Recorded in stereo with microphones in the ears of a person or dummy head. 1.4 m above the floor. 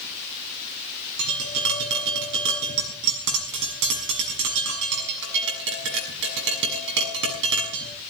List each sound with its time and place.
1.2 s tapping: 60° right (ahead or behind), 6.5 m